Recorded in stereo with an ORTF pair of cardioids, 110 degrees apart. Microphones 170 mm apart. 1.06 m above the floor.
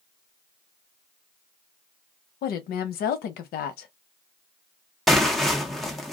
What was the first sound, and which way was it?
A woman speaking, 65° left.